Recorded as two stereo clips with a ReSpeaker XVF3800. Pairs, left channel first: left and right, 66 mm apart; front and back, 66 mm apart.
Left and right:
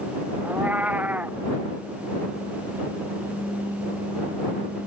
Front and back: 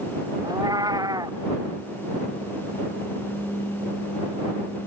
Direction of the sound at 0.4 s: 160° right.